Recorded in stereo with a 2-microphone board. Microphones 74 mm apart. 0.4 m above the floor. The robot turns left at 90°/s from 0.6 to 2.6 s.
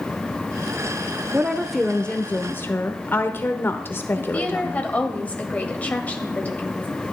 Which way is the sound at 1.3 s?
140° right.